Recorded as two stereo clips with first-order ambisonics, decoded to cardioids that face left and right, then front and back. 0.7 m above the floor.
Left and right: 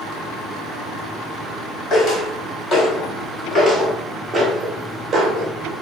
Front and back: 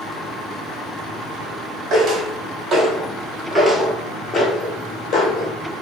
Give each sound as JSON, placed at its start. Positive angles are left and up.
{"t": 1.9, "sound": "footsteps", "azimuth_deg": 130, "distance_m": 1.3}